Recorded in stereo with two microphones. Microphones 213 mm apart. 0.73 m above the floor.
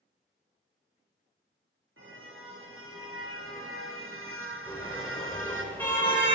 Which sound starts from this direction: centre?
A car horn, at 4.7 s.